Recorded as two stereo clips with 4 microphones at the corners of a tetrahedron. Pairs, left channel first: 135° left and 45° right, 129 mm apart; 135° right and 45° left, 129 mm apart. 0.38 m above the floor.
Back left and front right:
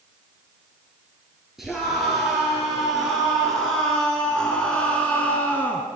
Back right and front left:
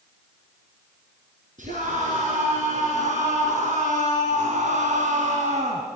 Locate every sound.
1.6 s a scream: 45° left, 6 m; by 5.9 s 60° left, 3.5 m